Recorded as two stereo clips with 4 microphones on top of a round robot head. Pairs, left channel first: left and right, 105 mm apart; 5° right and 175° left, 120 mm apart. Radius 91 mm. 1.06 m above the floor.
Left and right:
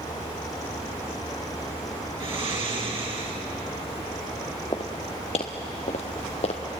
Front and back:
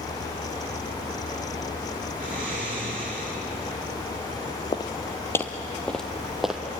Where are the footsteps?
35° left, 1.5 m; by 6.6 s 95° left, 2.0 m.